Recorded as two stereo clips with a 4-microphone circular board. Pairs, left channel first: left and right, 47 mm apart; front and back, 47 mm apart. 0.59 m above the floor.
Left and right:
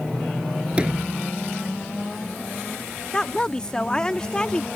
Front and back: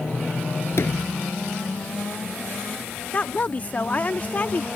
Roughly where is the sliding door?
Ahead right.